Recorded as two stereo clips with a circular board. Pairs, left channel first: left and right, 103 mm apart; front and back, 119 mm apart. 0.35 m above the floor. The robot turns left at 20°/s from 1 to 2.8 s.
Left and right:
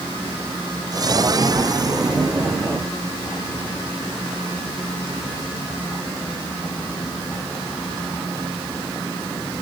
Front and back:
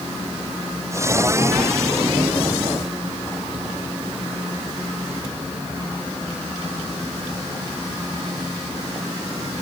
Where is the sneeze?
I don't hear a sneeze.